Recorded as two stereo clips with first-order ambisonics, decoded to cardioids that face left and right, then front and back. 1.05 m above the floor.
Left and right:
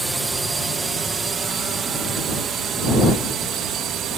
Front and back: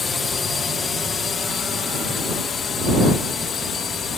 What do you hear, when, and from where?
0.0 s a drone: 30° right; by 4.2 s 55° right